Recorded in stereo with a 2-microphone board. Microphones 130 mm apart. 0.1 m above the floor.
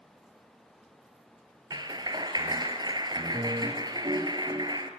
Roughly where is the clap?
Right.